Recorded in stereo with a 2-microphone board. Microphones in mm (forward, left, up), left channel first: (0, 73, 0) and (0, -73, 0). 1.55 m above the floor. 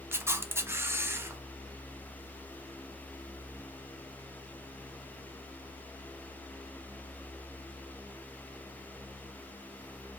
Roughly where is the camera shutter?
Centre.